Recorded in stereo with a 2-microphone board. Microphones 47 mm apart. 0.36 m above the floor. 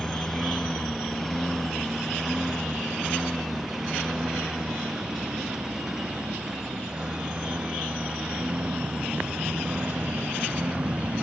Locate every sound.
0.0 s a lawn mower: 10° left (ahead or behind); by 11.2 s 25° right (ahead or behind)